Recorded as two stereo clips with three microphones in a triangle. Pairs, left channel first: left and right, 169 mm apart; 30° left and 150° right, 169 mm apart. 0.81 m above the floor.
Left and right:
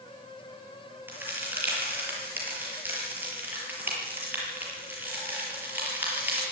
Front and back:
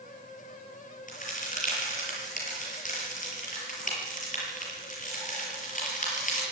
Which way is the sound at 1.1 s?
10° right.